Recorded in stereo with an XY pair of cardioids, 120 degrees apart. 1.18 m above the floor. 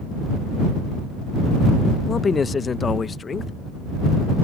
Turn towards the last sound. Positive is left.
turn(degrees=30)